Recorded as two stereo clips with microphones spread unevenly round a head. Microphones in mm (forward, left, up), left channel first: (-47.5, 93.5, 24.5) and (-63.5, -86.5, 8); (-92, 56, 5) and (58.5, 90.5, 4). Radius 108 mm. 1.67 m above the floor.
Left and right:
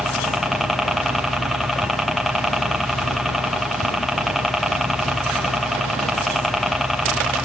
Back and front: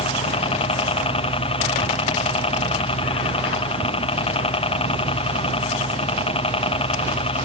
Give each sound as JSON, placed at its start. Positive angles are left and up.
{"t": 0.0, "sound": "a helicopter", "azimuth_deg": 180}